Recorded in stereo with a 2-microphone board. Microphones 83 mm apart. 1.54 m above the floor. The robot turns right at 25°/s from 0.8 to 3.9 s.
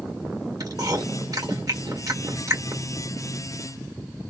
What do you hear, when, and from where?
0.6 s chewing: 50° right (ahead or behind), 1.7 m; by 2.8 s 35° right (ahead or behind), 1.7 m